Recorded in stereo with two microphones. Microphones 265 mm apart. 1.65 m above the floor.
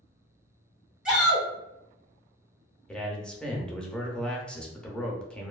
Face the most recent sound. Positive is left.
turn(degrees=5)  # may be behind; listen again after turning